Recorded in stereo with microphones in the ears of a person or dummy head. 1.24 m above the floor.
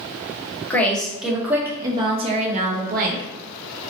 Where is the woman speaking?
5° left (ahead or behind), 1.4 m; by 3.2 s 55° right (ahead or behind), 1.4 m.